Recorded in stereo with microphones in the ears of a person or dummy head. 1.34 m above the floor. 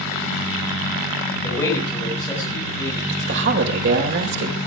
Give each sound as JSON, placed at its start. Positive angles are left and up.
{"t": 1.4, "sound": "a man speaking", "side_deg": 10, "distance_m": 6.0}
{"t": 3.1, "sound": "a woman speaking", "side_deg": -60, "distance_m": 5.0}